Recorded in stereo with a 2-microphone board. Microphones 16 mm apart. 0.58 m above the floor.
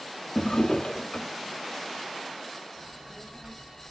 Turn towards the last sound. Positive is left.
turn(degrees=-55)  # may be behind; listen again after turning